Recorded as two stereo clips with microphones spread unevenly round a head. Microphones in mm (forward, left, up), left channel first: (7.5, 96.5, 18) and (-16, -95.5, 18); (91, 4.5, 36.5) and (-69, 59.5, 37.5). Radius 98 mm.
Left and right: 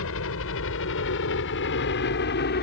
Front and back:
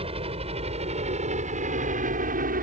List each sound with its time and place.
0.0 s a helicopter: 105° left; by 2.6 s 125° left